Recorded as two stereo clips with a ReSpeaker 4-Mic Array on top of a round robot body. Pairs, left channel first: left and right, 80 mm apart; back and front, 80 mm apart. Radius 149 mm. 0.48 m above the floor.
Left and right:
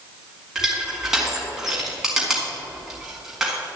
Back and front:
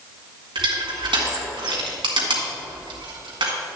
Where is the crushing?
5° right, 2 m.